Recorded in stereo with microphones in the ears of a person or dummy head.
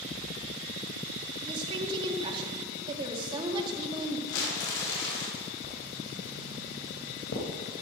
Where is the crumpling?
65° left (ahead or behind), 5 m.